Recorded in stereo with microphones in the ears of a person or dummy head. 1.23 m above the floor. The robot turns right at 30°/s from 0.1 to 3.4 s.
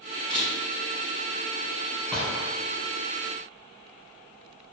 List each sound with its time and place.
0.3 s a camera shutter: centre (ahead or behind), 1.8 m; by 0.5 s 5° right (ahead or behind), 1.8 m
2.1 s a gunshot: 5° left (ahead or behind), 1.5 m; by 2.5 s 5° right (ahead or behind), 1.5 m